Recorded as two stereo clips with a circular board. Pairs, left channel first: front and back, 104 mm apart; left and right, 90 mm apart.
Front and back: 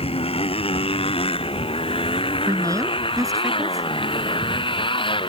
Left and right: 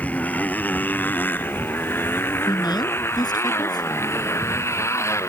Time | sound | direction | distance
0.0 | a motorcycle | 15° left | ?
2.5 | a woman speaking | 125° left | ?